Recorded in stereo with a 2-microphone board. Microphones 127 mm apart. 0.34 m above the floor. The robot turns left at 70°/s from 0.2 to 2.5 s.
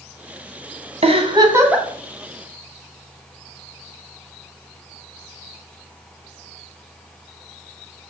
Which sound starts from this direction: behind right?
A giggle, at 1.0 s.